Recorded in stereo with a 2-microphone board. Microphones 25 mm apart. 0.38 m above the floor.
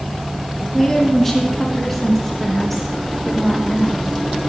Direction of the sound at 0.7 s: 20° left (ahead or behind).